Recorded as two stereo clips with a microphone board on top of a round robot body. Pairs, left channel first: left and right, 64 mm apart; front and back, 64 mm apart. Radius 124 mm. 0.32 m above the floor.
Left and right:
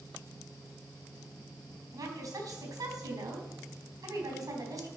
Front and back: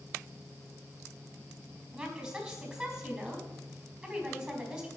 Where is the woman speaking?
95° right, 3.5 m.